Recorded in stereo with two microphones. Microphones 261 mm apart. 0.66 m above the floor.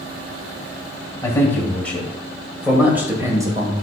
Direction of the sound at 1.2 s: 10° left (ahead or behind).